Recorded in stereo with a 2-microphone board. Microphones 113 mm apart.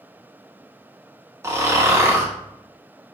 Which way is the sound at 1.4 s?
25° right (ahead or behind).